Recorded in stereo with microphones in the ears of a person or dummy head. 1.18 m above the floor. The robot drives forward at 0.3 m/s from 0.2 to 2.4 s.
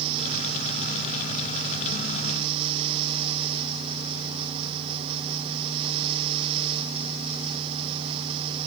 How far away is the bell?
No bell in this recording.